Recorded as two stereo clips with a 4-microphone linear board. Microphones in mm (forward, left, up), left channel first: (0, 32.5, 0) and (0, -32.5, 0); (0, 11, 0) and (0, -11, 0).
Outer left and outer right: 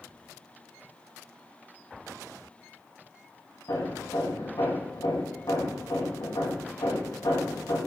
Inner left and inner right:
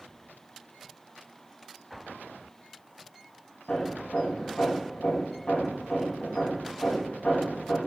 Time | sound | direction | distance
3.7 | hammering | 70° left (ahead or behind) | 6 m